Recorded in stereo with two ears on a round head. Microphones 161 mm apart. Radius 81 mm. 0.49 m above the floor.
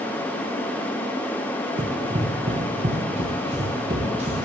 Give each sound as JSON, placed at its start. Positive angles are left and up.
{"t": 1.8, "sound": "running footsteps", "side_deg": -25, "distance_m": 1.3}